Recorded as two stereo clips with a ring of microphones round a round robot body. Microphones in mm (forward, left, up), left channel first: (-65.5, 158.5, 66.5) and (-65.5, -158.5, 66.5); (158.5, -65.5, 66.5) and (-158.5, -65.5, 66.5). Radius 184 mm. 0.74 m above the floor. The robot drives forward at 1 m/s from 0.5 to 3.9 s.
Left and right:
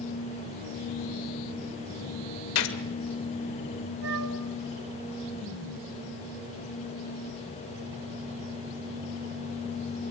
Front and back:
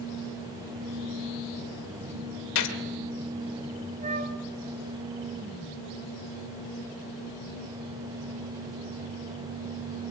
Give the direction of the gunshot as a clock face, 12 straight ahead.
11 o'clock.